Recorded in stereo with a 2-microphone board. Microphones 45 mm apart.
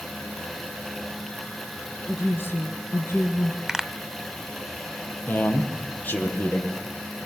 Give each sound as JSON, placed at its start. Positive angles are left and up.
{"t": 2.1, "sound": "a woman speaking", "side_deg": 60, "distance_m": 3.0}
{"t": 3.7, "sound": "a pop", "side_deg": -10, "distance_m": 1.7}
{"t": 5.3, "sound": "a man speaking", "side_deg": 45, "distance_m": 7.0}